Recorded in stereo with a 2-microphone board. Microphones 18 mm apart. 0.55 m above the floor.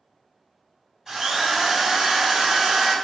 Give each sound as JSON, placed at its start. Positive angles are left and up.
{"t": 1.1, "sound": "a drill", "side_deg": -30, "distance_m": 1.3}